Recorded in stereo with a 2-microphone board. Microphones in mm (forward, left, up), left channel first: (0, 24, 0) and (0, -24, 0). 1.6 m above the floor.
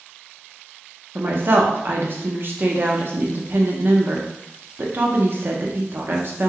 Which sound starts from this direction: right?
A woman speaking, at 1.1 s.